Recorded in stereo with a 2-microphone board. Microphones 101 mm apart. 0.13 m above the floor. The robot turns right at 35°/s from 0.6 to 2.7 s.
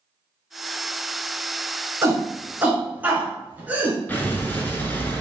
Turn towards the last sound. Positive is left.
turn(degrees=20)  # may be behind; listen again after turning